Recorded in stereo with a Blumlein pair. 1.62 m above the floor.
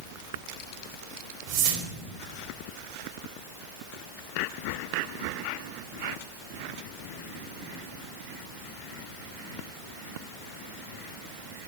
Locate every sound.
1.5 s a whoosh: 45° right, 0.9 m